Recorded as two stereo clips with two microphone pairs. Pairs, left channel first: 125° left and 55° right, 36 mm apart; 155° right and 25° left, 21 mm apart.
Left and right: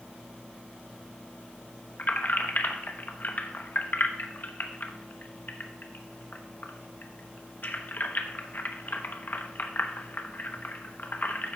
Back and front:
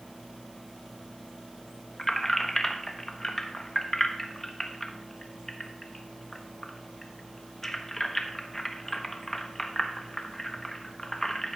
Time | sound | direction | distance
2.0 | keys jangling | 130° left | 0.9 m